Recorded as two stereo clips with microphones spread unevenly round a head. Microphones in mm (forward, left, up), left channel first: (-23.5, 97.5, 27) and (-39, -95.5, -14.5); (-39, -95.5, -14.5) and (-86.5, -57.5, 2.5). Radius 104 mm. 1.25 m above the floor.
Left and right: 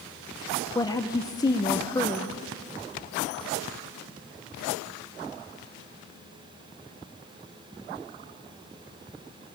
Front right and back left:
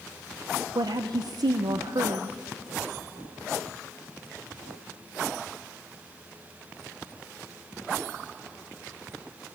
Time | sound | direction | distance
0.8 | a woman speaking | 160° left | 0.8 m